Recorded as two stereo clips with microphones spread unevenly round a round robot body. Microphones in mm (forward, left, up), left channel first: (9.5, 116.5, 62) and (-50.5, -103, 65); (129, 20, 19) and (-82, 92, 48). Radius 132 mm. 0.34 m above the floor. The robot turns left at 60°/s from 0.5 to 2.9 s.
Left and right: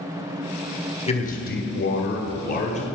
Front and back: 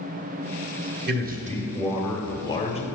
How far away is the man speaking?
About 1.3 m.